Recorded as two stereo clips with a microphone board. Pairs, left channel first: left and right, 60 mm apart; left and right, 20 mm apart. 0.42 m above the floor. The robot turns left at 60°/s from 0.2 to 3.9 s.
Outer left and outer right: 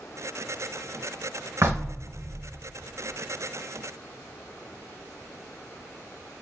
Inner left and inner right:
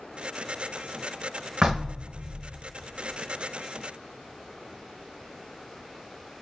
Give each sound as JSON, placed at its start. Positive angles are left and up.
{"t": 1.6, "sound": "knocking", "azimuth_deg": -65, "distance_m": 0.8}